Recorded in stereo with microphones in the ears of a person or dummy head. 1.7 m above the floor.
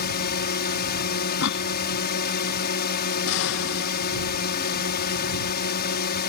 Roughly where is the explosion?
Left.